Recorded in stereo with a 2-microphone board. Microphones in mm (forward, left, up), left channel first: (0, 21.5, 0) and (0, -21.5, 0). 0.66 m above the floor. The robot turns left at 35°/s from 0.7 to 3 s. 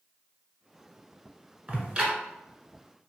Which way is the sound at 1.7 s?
40° right (ahead or behind).